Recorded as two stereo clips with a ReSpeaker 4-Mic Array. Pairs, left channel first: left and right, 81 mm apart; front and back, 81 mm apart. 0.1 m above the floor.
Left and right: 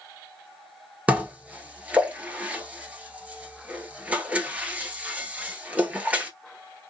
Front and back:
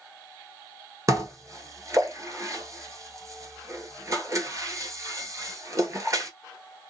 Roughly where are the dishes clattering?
Behind right.